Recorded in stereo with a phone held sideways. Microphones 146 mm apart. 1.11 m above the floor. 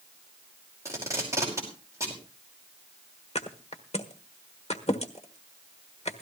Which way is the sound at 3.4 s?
45° left (ahead or behind).